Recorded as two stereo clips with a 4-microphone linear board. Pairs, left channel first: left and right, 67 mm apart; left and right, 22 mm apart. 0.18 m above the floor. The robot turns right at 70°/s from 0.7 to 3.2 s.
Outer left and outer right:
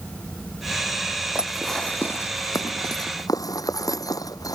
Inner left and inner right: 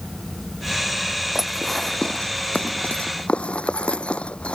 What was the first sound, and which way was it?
Dishes clattering, 20° right (ahead or behind).